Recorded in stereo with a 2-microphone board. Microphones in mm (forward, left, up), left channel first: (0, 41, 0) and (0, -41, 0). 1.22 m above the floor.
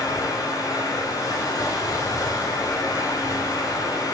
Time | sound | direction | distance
0.0 | running water | 55° left (ahead or behind) | 5.5 m